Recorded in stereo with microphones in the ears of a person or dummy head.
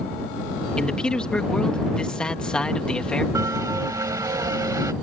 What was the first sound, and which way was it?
A man speaking, centre (ahead or behind).